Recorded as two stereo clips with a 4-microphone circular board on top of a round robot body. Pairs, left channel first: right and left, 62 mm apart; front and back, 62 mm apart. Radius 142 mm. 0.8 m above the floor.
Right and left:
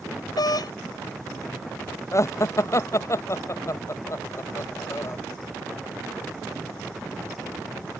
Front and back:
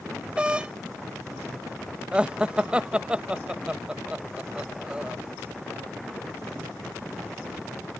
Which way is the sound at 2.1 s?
110° right.